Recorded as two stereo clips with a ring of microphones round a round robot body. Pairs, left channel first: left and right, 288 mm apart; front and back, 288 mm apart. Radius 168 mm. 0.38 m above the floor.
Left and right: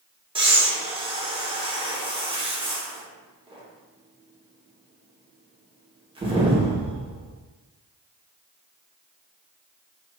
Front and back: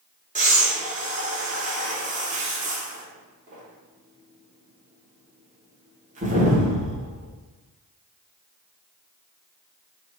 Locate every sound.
0.3 s breathing: 145° right, 1.1 m